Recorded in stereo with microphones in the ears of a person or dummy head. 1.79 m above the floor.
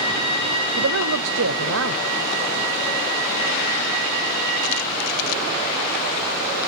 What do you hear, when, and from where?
0.8 s a man speaking: 65° right (ahead or behind), 0.8 m